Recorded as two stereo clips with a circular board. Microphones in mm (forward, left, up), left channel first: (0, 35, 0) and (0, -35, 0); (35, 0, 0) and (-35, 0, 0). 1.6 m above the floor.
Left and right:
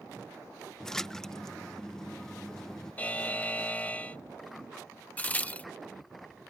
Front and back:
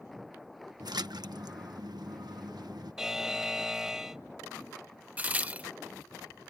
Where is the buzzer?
110° left.